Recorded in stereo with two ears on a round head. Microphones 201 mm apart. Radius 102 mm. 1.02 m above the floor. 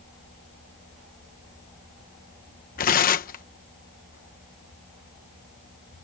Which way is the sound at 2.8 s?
40° left (ahead or behind).